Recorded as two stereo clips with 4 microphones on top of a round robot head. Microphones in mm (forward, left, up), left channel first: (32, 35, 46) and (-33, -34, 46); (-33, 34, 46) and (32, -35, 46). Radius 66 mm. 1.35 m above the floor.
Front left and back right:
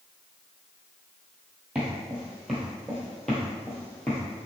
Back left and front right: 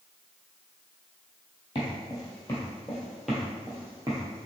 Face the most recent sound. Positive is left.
turn(degrees=-20)